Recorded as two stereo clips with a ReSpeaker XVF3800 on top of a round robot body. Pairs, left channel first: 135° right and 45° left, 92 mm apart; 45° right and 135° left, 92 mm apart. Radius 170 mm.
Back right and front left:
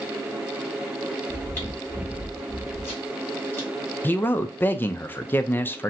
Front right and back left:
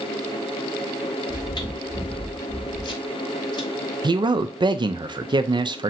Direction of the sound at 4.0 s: 160° left.